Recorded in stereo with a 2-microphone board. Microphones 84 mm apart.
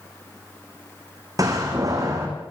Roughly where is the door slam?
Right.